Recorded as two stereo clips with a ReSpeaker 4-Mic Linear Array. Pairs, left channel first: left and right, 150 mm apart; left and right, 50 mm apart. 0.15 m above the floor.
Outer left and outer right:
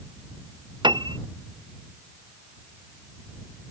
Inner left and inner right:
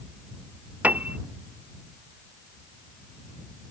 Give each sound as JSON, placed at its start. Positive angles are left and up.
{"t": 0.8, "sound": "a piano", "side_deg": -30}